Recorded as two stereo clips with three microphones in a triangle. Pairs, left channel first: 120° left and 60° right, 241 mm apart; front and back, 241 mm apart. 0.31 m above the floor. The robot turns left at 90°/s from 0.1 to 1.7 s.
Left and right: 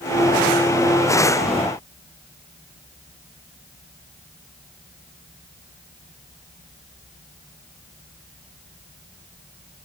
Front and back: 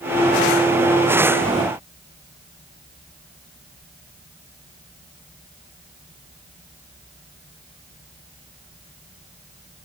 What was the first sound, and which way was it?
Only background noise.